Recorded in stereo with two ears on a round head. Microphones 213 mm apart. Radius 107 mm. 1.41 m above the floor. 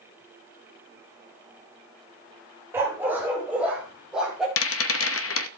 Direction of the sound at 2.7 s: 10° right (ahead or behind).